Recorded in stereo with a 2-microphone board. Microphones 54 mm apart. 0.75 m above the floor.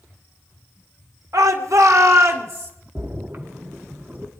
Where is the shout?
75° right (ahead or behind), 1.9 m; by 2.7 s 50° right (ahead or behind), 2.5 m.